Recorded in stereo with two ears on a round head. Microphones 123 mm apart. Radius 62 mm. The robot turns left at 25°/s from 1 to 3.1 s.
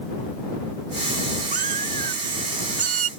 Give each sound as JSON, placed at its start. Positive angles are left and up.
{"t": 1.5, "sound": "a cat meowing", "azimuth_deg": -70}